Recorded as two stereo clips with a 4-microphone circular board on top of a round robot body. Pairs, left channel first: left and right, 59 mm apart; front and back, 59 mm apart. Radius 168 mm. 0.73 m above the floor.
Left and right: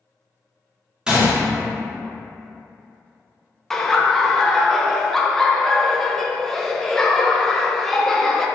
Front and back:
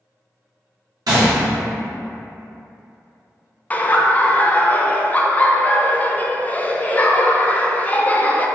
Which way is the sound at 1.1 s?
170° right.